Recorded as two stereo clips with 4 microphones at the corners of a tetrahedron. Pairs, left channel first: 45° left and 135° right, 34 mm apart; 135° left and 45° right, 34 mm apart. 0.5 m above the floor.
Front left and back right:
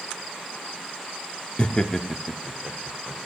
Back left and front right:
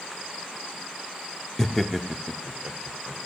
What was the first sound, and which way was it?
Laughter, 80° left.